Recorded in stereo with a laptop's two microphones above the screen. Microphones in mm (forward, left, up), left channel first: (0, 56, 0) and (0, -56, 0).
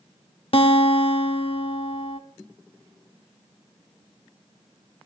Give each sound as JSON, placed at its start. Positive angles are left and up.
{"t": 0.5, "sound": "a guitar", "side_deg": 55, "distance_m": 1.0}